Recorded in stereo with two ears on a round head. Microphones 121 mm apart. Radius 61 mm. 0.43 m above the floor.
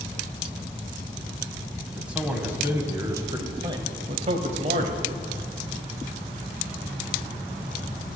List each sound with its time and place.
1.9 s a man speaking: 5° right (ahead or behind), 2.5 m; by 5.1 s 60° right (ahead or behind), 1.8 m